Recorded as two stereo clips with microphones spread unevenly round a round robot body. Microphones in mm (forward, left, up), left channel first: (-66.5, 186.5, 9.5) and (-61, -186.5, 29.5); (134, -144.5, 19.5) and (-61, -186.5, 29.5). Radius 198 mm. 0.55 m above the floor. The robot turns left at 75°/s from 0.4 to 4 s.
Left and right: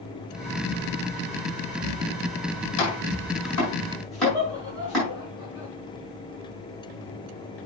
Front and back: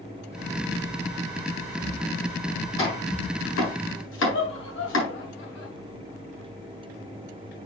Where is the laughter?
5° right, 5 m.